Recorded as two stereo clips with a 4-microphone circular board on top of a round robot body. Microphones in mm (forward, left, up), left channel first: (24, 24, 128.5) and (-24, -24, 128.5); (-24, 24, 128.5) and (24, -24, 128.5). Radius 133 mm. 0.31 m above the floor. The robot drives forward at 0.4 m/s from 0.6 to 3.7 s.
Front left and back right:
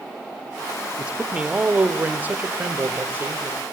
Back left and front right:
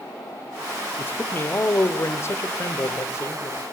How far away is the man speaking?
About 1.3 m.